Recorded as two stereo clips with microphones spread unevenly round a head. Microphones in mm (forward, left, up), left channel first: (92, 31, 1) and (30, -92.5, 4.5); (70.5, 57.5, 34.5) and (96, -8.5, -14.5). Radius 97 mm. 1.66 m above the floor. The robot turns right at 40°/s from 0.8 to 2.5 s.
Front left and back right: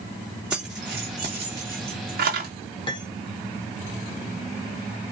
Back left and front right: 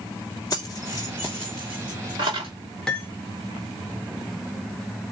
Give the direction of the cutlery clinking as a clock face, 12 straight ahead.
8 o'clock.